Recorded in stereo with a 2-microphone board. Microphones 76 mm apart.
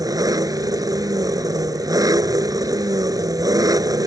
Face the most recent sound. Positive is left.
turn(degrees=-55)  # may be behind; listen again after turning